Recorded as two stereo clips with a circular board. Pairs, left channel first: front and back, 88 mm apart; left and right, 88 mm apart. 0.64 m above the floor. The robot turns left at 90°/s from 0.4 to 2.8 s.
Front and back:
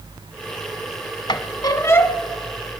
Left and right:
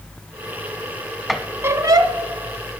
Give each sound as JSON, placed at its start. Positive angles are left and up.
{"t": 1.3, "sound": "a squeak", "azimuth_deg": 0, "distance_m": 0.9}